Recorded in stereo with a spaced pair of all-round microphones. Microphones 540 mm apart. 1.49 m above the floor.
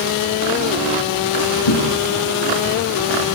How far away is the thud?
About 6 m.